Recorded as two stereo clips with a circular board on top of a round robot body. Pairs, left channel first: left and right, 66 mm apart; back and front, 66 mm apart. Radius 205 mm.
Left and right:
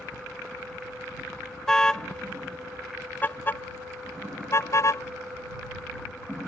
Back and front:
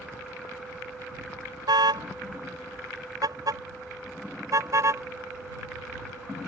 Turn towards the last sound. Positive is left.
turn(degrees=45)